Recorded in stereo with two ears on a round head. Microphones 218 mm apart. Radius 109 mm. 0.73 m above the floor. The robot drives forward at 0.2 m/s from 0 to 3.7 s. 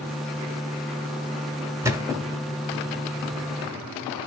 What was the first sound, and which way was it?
A thud, 10° right (ahead or behind).